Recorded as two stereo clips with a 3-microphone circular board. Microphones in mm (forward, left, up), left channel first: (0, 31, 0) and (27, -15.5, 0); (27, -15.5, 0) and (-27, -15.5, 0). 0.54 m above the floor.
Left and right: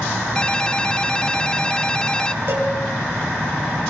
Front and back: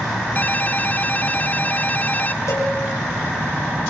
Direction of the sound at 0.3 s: 50° left.